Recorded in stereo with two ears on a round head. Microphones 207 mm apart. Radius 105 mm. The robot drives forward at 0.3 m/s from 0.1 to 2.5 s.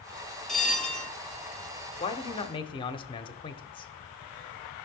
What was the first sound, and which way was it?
A bell, centre (ahead or behind).